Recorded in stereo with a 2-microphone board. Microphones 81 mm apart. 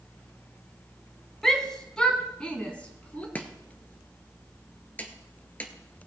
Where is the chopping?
20° left (ahead or behind), 1.2 m.